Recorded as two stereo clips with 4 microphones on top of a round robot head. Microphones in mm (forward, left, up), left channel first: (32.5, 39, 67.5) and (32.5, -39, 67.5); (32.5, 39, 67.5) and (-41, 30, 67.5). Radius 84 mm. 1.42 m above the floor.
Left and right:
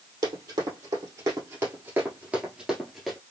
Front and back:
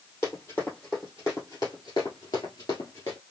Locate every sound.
0.2 s running footsteps: 65° right, 2.5 m; by 3.2 s 10° left, 1.5 m